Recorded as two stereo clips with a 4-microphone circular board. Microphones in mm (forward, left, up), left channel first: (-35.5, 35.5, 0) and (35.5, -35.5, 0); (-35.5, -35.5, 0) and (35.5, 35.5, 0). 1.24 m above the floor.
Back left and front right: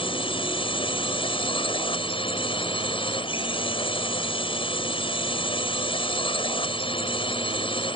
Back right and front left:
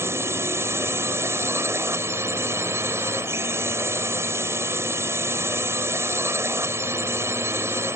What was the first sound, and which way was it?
A drone, 110° left.